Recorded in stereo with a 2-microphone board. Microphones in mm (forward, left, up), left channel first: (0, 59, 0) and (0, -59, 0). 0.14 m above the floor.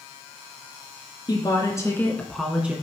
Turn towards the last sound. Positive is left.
turn(degrees=-15)  # may be behind; listen again after turning